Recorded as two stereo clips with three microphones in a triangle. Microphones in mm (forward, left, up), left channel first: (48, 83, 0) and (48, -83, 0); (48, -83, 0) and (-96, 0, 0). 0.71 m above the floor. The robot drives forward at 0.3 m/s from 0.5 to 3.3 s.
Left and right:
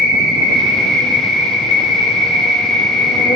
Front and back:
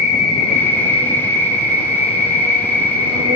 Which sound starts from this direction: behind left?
An insect, at 0.0 s.